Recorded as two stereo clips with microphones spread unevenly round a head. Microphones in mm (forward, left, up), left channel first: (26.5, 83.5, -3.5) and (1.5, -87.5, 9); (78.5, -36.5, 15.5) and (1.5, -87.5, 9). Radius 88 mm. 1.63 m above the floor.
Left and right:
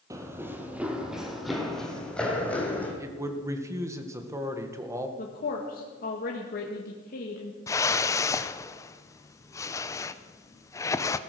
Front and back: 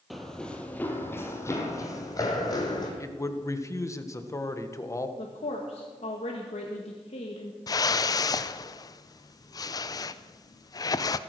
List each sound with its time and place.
0.1 s running footsteps: 50° right, 1.9 m; by 2.9 s straight ahead, 3.5 m
3.0 s a man speaking: 25° right, 1.7 m
5.2 s a woman speaking: 40° left, 1.8 m
7.7 s a whoosh: 10° left, 0.6 m